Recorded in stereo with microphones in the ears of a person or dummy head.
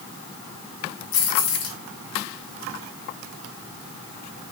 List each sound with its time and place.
1.1 s keys jangling: 70° left (ahead or behind), 2 m